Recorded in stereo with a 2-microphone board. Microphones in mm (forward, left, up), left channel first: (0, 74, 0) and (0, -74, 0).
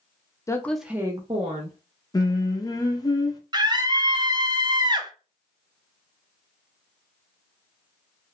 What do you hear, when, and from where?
0.5 s a woman speaking: 20° left (ahead or behind), 0.5 m; by 1.8 s 55° right (ahead or behind), 0.8 m
2.1 s singing: 25° left (ahead or behind), 0.5 m
3.5 s a scream: 30° right (ahead or behind), 0.5 m